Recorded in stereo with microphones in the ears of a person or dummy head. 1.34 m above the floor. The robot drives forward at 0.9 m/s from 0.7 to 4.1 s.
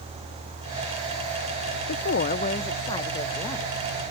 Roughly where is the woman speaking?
Left.